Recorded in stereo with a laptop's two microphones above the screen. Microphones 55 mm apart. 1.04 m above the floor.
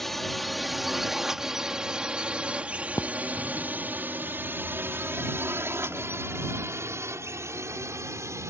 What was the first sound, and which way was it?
A drone, 5° left (ahead or behind).